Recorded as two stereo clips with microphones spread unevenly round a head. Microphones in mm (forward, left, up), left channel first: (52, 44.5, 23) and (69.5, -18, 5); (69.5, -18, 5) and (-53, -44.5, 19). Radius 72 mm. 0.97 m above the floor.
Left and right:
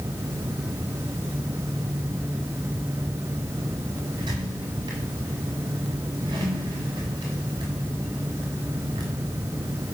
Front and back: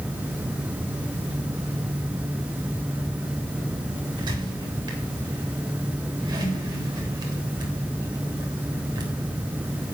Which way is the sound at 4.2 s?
110° right.